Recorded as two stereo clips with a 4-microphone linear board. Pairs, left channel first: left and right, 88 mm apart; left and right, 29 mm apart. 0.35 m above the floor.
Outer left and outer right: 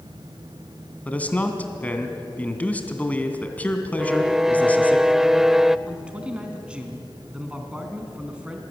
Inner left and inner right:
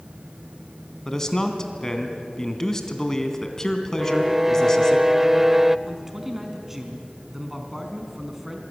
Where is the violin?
5° right (ahead or behind), 0.6 m.